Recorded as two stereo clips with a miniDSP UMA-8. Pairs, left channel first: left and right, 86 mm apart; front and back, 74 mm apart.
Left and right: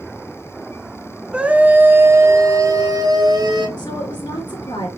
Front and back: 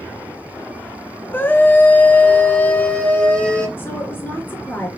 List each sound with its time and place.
1.3 s a scream: 25° right, 1.1 m; by 3.7 s 75° right, 1.9 m
3.8 s a woman speaking: 60° left, 3 m